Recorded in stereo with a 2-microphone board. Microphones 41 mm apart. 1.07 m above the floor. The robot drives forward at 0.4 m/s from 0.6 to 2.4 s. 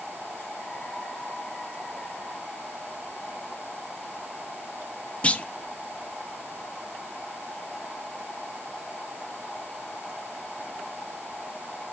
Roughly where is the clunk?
Left.